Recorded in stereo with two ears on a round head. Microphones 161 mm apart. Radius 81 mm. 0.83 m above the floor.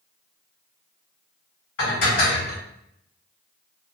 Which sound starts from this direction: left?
Dishes clattering, at 1.8 s.